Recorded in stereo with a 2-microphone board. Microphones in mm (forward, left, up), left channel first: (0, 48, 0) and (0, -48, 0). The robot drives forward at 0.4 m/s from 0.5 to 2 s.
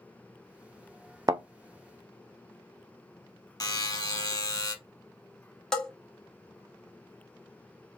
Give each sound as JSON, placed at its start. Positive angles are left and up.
{"t": 1.3, "sound": "a thud", "side_deg": -45, "distance_m": 0.6}
{"t": 3.6, "sound": "a buzzer", "side_deg": 45, "distance_m": 0.8}
{"t": 5.7, "sound": "a bell", "side_deg": 5, "distance_m": 1.0}